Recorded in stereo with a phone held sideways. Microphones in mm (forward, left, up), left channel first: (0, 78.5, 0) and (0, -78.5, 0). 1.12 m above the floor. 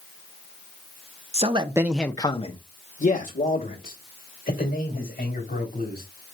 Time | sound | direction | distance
1.3 | a man speaking | 45° right (ahead or behind) | 0.8 m